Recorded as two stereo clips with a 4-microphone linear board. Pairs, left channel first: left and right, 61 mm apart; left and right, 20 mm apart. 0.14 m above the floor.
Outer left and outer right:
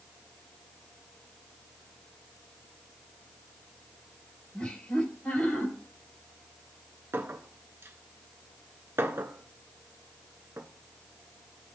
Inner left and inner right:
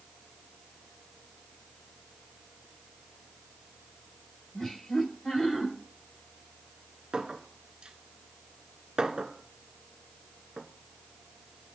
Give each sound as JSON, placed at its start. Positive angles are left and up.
{"t": 4.5, "sound": "laughter", "side_deg": 20, "distance_m": 4.0}
{"t": 7.1, "sound": "a clink", "side_deg": -45, "distance_m": 1.0}